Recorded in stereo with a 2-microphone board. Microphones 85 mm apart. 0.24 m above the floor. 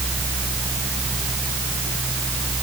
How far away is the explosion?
I don't hear an explosion.